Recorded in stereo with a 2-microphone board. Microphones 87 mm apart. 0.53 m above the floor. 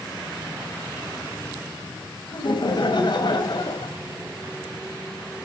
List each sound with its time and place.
2.3 s laughter: 60° left (ahead or behind), 2.5 m